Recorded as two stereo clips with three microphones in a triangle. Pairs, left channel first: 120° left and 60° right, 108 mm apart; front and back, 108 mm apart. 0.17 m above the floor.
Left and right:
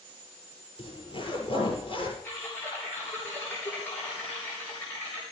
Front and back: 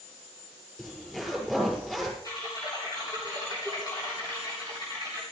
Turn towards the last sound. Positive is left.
turn(degrees=50)